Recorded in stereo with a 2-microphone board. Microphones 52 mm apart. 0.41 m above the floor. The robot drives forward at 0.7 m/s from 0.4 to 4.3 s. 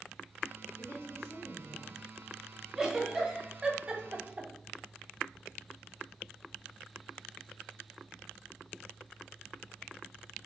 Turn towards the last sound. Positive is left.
turn(degrees=-30)  # may be behind; listen again after turning